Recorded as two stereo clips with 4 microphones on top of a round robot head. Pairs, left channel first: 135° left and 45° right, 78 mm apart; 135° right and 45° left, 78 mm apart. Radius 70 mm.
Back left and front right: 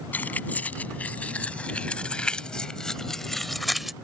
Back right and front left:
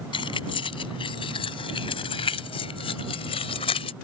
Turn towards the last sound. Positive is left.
turn(degrees=-130)